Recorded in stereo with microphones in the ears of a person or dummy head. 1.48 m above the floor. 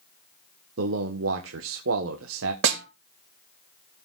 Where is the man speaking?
75° right (ahead or behind), 1.2 m.